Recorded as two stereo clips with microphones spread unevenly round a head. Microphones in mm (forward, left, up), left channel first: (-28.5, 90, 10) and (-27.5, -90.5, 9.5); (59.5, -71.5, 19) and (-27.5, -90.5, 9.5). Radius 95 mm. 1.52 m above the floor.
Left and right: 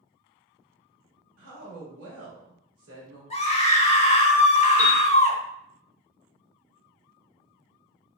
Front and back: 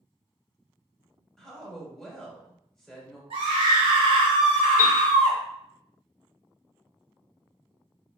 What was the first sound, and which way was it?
A woman speaking, 75° right.